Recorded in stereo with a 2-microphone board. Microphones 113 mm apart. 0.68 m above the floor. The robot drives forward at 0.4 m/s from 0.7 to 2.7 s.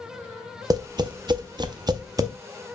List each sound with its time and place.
0.7 s tapping: 35° right (ahead or behind), 0.5 m; by 2.3 s 30° right (ahead or behind), 0.6 m